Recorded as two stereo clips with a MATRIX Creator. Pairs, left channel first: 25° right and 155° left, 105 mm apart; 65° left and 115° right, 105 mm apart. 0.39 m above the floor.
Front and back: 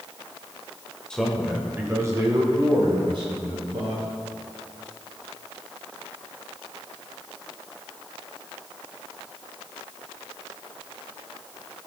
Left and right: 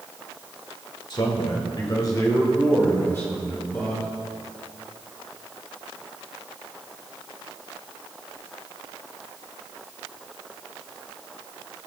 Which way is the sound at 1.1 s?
55° left.